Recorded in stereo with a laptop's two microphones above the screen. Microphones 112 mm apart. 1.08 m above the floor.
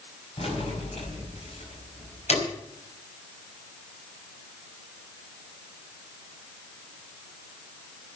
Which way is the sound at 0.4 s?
60° left (ahead or behind).